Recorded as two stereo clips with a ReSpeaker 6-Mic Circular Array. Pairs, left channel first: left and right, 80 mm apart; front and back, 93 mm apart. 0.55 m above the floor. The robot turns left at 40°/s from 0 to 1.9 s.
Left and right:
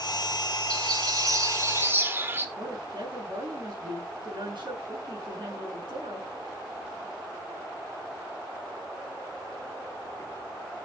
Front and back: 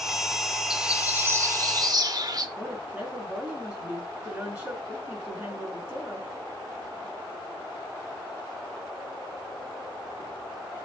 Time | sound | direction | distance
0.7 | a bird | 100° right | 1.2 m
2.6 | a woman speaking | 105° right | 5 m